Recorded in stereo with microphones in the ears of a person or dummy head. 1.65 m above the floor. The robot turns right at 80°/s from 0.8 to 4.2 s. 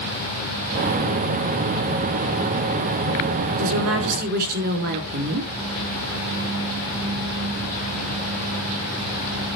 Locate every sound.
3.6 s a woman speaking: 100° right, 4 m; by 5.5 s 50° right, 4 m